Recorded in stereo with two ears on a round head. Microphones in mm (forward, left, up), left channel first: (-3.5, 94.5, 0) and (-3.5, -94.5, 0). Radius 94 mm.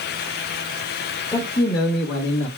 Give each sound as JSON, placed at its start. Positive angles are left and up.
{"t": 1.3, "sound": "a man speaking", "side_deg": 15, "distance_m": 1.1}